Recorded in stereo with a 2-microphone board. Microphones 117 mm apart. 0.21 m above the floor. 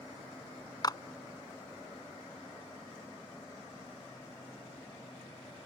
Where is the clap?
35° left (ahead or behind).